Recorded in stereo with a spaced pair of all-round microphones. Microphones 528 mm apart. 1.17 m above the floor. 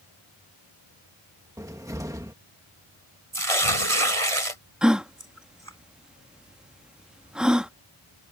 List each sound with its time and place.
1.6 s a cupboard door: 5° right (ahead or behind)
3.3 s tearing paper: 90° right
4.8 s a gasp: centre (ahead or behind)